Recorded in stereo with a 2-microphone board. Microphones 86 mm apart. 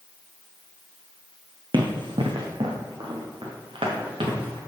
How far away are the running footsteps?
About 1.7 m.